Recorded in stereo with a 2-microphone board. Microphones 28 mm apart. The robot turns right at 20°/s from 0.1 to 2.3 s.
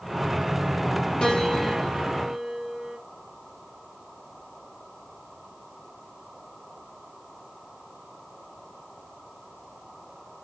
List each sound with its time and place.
1.2 s a piano: 25° left (ahead or behind), 3.5 m; by 3.0 s 5° left (ahead or behind), 3.5 m